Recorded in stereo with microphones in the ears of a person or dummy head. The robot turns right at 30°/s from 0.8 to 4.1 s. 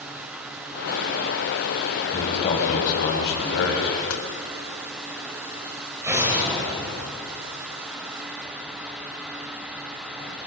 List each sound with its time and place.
2.1 s a man speaking: 30° left, 6.5 m; by 4.0 s 85° left, 6.5 m
4.1 s a door slam: 85° left, 3.5 m
6.0 s an explosion: 10° right (ahead or behind), 6 m